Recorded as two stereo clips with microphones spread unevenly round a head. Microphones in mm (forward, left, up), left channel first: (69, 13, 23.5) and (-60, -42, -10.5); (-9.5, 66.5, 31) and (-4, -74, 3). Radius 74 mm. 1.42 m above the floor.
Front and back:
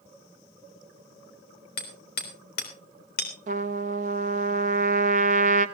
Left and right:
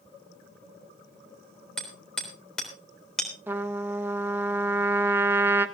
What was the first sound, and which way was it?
Hammering, 10° left.